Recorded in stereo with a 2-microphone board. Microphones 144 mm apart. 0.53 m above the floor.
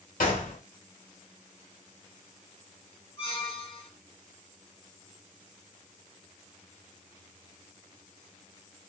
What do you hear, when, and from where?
0.2 s a gunshot: 75° left (ahead or behind), 1.2 m
3.2 s a squeak: 45° left (ahead or behind), 1.1 m